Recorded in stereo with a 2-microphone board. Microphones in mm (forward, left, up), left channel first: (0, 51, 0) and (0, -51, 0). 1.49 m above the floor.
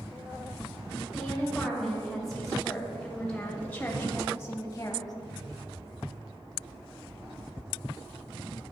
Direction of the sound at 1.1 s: 5° right (ahead or behind).